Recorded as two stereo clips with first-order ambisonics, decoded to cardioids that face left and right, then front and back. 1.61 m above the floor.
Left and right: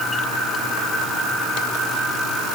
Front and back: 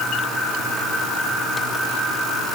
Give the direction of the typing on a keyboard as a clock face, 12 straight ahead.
No typing on a keyboard in this recording.